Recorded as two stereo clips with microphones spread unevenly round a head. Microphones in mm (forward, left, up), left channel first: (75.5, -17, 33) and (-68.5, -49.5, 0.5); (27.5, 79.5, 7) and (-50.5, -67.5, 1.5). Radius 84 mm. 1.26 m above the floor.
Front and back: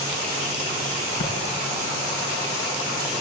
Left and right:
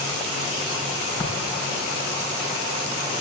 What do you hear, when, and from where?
1.2 s tapping: 10° right, 3 m